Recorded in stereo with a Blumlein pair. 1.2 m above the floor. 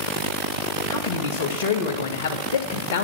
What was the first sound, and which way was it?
A man speaking, 55° left.